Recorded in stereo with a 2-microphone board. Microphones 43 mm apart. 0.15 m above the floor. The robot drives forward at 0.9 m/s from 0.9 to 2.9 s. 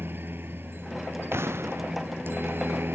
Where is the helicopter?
55° right (ahead or behind).